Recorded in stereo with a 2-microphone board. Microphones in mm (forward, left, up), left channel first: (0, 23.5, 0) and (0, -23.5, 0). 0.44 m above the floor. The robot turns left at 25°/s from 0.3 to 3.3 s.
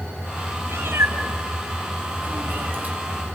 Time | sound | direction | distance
0.7 | a cat meowing | 70° right (ahead or behind) | 1.5 m